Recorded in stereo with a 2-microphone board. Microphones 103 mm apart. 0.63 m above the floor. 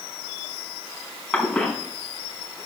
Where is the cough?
10° left (ahead or behind), 6 m.